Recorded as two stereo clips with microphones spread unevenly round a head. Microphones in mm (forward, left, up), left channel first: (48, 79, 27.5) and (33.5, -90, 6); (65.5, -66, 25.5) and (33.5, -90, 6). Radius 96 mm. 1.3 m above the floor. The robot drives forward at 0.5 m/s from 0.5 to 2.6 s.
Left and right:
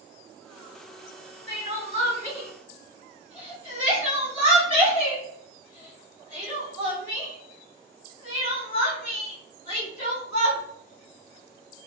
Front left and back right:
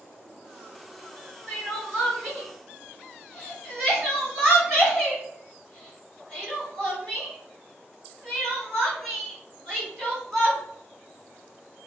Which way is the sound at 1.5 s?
120° left.